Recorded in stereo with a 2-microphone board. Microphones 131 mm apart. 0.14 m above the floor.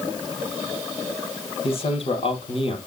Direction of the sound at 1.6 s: 50° left (ahead or behind).